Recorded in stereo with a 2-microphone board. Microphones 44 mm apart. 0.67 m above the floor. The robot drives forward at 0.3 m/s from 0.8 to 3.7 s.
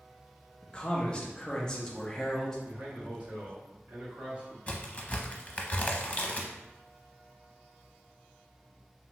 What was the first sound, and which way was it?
A man speaking, 20° left (ahead or behind).